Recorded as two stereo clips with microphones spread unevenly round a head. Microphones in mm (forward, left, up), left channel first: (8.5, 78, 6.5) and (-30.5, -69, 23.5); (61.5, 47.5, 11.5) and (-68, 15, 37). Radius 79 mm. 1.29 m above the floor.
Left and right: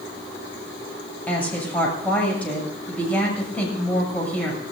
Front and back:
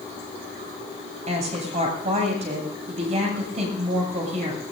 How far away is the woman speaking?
About 7 m.